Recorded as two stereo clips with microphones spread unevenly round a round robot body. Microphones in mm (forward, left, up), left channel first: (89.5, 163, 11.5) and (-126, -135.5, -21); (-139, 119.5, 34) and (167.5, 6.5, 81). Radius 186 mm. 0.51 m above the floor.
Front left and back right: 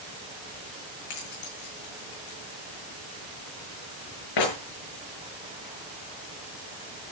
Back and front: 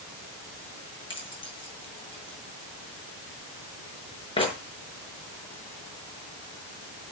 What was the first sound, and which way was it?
Keys jangling, 85° left.